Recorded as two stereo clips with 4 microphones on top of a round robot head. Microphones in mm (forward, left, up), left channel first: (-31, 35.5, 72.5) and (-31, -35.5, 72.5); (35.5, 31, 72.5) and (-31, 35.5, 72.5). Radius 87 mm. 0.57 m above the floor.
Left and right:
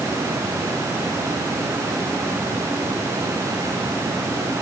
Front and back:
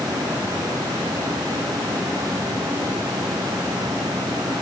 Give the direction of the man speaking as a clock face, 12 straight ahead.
I don't hear a man speaking.